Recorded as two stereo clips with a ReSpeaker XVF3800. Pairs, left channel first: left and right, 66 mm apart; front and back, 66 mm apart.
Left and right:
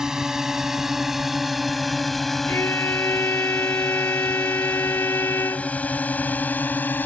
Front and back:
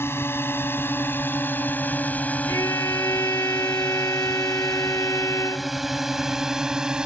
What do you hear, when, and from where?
0.0 s a drone: 15° right; by 7.1 s 115° left
2.5 s a violin: 40° left